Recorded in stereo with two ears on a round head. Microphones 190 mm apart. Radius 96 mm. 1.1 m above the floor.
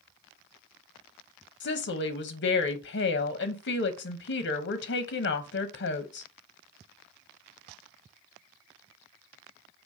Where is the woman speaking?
55° left (ahead or behind), 0.8 m.